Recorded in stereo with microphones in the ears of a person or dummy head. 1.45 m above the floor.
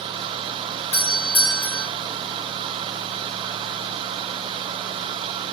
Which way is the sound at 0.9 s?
60° left (ahead or behind).